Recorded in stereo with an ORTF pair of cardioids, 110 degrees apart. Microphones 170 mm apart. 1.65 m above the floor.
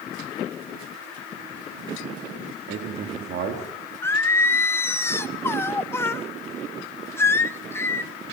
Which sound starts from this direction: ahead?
Singing, at 4.0 s.